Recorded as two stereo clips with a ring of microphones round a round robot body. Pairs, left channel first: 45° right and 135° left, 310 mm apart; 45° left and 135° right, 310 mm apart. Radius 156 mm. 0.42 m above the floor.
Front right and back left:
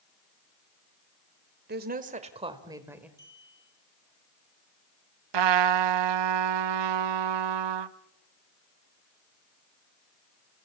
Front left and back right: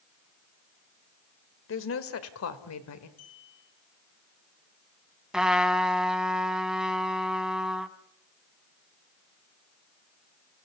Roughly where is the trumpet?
Behind left.